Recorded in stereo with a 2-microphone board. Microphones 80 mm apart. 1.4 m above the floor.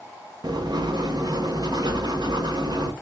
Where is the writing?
55° right (ahead or behind), 0.6 m.